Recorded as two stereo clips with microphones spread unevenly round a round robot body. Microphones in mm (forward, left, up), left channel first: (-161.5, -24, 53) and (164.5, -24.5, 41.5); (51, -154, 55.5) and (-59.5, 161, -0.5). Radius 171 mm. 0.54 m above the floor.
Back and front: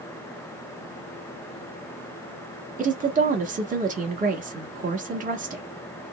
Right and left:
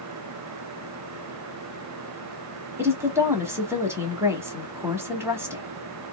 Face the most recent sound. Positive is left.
turn(degrees=45)